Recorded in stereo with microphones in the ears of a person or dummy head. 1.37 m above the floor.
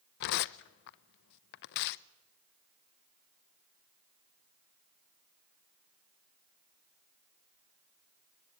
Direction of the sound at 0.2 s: 60° left (ahead or behind).